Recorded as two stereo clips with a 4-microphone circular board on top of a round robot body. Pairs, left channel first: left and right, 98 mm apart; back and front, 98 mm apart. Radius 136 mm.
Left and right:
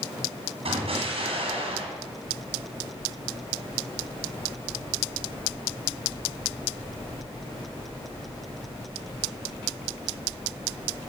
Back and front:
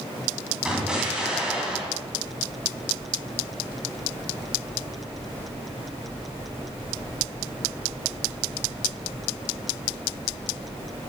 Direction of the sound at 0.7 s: 85° right.